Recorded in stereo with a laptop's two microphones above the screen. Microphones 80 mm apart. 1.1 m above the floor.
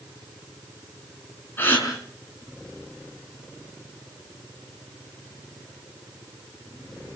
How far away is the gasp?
About 5.5 m.